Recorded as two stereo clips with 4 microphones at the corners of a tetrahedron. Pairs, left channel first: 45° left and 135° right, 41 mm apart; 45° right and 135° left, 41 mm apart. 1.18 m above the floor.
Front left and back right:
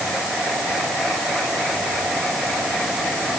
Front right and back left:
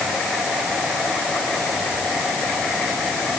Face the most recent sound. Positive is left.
No sound to turn to.